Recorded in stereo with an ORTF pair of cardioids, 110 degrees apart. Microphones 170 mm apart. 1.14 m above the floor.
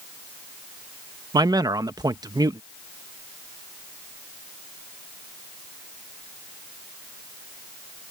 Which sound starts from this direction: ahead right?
A man speaking, at 1.3 s.